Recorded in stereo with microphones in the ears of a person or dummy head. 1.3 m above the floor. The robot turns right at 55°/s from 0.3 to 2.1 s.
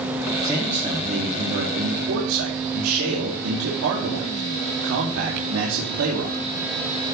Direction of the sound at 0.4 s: Straight behind.